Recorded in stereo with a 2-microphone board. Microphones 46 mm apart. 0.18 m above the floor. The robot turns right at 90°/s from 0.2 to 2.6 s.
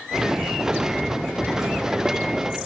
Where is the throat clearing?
No throat clearing in this recording.